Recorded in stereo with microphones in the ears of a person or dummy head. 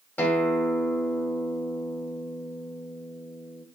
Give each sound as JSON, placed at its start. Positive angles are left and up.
{"t": 0.2, "sound": "a guitar", "side_deg": 5, "distance_m": 2.0}